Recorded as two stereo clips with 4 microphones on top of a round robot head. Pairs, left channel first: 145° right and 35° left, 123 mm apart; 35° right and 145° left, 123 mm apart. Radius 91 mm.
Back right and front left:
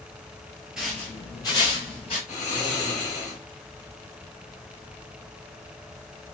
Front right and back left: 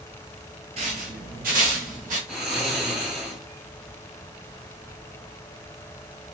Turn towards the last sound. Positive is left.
turn(degrees=-130)